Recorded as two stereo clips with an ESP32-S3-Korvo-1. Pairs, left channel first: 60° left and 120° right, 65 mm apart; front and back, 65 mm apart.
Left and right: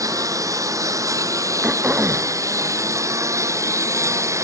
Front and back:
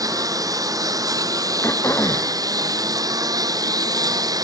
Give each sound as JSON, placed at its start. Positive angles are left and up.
{"t": 0.0, "sound": "a lawn mower", "azimuth_deg": -155}
{"t": 1.6, "sound": "throat clearing", "azimuth_deg": -50}